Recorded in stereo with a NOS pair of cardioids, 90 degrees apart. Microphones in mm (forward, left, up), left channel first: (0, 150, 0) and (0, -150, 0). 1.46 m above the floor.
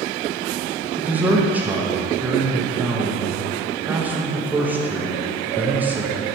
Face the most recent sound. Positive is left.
turn(degrees=-5)